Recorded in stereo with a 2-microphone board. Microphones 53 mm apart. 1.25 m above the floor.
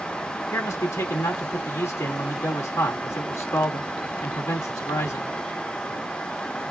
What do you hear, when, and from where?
0.5 s a man speaking: 65° left (ahead or behind), 2.5 m